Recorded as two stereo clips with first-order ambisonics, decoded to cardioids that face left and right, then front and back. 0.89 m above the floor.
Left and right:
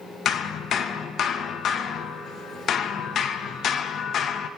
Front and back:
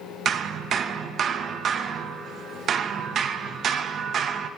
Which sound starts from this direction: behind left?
Hammering, at 0.2 s.